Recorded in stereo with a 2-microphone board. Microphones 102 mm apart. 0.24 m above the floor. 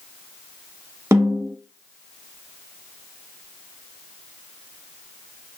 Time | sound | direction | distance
1.1 | a snare drum | 30° right (ahead or behind) | 0.8 m